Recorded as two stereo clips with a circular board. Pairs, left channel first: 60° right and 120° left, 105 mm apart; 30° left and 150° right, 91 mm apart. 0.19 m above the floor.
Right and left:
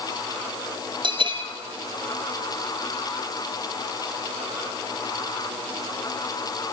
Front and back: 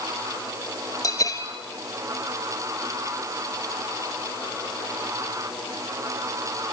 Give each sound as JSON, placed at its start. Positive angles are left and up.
{"t": 1.0, "sound": "a bell", "azimuth_deg": 80, "distance_m": 1.5}